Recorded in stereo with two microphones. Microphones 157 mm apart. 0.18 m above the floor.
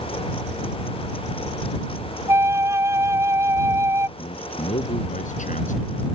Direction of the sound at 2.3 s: 15° right (ahead or behind).